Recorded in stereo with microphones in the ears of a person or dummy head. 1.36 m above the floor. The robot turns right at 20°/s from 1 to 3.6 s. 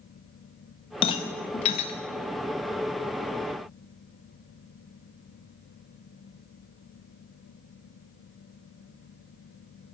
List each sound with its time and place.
1.0 s a rattle: 30° left (ahead or behind), 0.7 m; by 1.9 s 35° left (ahead or behind), 0.7 m